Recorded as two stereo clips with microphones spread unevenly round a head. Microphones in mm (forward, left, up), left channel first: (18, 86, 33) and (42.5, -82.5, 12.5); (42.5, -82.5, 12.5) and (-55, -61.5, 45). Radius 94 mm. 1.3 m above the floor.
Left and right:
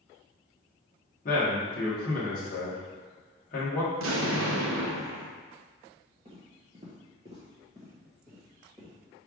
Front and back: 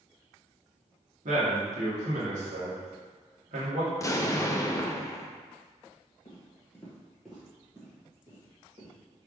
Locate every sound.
1.2 s a man speaking: 150° left, 1.3 m
3.9 s an explosion: 75° right, 0.6 m
6.2 s footsteps: 35° right, 1.4 m; by 8.9 s 165° right, 2.5 m